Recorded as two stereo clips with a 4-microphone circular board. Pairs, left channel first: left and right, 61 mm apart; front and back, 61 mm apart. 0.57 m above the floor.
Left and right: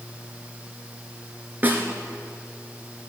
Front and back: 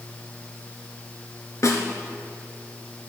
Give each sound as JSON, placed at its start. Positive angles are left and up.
{"t": 1.6, "sound": "a snare drum", "azimuth_deg": -30, "distance_m": 1.3}